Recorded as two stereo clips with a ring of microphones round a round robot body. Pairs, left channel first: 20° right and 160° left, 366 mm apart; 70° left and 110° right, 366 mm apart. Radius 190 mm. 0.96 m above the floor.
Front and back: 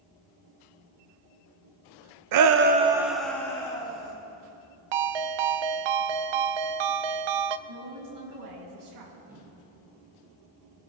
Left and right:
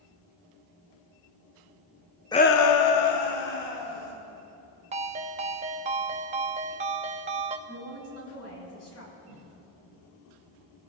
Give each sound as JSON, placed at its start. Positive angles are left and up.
{"t": 2.3, "sound": "a shout", "azimuth_deg": 145, "distance_m": 0.7}
{"t": 4.9, "sound": "a ringtone", "azimuth_deg": 175, "distance_m": 0.5}
{"t": 7.7, "sound": "a woman speaking", "azimuth_deg": 115, "distance_m": 6.5}
{"t": 9.3, "sound": "footsteps", "azimuth_deg": 75, "distance_m": 6.5}